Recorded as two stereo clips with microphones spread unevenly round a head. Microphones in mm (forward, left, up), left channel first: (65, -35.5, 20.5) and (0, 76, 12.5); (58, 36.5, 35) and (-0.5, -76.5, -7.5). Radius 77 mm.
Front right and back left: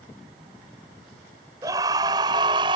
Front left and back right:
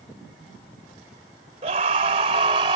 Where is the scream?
170° right; by 2.8 s straight behind.